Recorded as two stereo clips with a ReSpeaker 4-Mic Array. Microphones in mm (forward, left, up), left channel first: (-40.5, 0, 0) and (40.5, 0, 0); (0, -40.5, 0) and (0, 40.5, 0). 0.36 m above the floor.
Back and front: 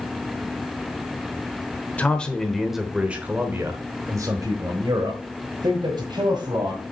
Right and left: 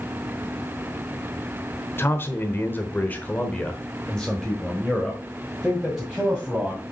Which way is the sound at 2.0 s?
120° right.